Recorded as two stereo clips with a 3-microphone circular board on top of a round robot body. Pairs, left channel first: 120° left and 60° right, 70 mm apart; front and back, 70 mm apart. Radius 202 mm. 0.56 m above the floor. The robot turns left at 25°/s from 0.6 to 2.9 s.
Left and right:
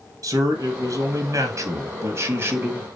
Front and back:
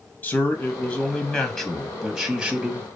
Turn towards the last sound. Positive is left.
turn(degrees=-110)